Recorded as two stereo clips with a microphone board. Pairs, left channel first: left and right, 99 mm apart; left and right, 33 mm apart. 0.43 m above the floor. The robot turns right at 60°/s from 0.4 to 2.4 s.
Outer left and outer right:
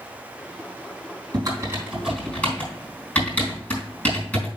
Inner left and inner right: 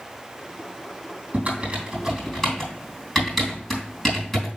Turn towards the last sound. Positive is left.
turn(degrees=15)  # may be behind; listen again after turning